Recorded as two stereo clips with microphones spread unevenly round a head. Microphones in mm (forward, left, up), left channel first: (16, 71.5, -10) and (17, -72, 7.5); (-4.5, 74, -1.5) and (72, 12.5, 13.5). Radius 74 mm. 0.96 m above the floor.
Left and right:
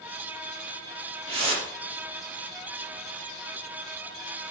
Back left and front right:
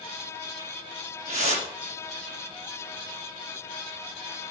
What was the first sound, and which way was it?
A whoosh, 40° right.